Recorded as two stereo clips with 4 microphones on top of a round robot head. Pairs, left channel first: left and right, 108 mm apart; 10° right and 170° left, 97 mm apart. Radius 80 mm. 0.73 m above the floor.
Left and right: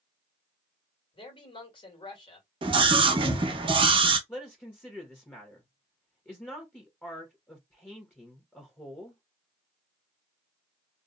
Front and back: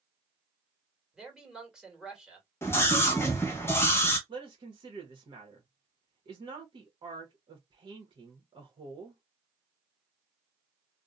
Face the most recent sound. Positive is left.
turn(degrees=160)